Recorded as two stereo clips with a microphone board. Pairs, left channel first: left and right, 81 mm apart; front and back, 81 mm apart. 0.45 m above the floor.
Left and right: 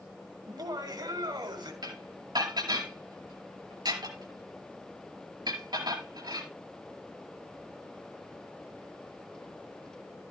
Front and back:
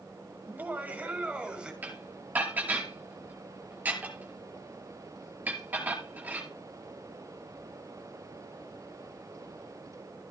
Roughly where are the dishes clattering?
Behind right.